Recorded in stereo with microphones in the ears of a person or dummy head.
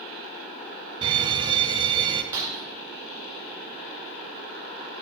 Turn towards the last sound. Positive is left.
turn(degrees=-15)  # may be behind; listen again after turning